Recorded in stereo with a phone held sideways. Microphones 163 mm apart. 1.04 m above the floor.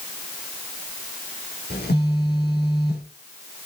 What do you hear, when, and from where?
1.7 s a phone buzzing: 80° left, 3 m